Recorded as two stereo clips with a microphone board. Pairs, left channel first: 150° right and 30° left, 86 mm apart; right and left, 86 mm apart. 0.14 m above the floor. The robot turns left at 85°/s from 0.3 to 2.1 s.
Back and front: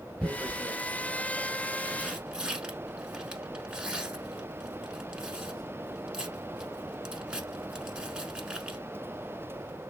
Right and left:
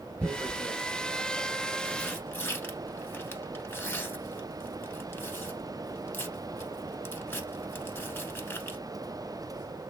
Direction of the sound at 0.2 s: 110° left.